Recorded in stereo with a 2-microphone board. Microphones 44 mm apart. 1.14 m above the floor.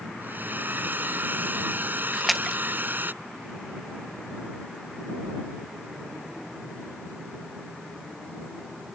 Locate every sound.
0.2 s a hair dryer: 50° right (ahead or behind)
2.1 s a splash: centre (ahead or behind)